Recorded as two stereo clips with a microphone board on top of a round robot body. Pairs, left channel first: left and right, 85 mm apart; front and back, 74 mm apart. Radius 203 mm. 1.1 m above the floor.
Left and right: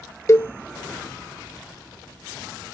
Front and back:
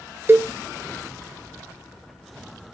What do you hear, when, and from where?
0.3 s a cowbell: 135° left, 0.9 m